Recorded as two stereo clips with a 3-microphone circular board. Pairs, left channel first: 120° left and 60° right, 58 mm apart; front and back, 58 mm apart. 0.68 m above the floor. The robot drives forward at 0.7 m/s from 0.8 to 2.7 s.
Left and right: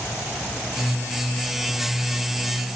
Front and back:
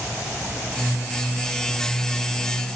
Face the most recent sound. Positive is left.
No sound to turn to.